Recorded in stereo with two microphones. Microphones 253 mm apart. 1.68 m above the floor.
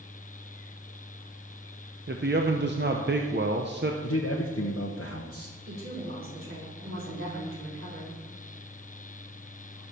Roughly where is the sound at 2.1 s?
Right.